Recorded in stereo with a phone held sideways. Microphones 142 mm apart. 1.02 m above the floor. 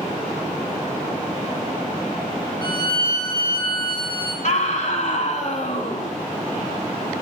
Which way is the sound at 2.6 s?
30° left (ahead or behind).